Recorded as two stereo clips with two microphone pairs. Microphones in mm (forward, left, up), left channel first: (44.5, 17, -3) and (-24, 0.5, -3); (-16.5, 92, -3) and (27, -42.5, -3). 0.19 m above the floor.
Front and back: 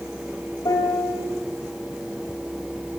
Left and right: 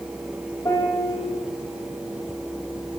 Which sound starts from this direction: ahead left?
A piano, at 0.7 s.